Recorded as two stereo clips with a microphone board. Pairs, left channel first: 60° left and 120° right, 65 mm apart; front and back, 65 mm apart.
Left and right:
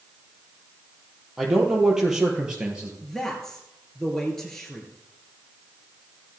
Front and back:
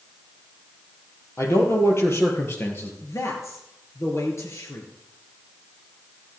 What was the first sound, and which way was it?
A man speaking, 35° right.